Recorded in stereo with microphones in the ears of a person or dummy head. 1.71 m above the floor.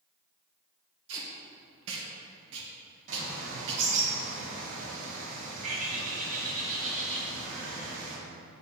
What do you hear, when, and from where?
1.1 s tape being pulled: 80° right, 1.8 m
3.1 s a bird: 45° right (ahead or behind), 2.5 m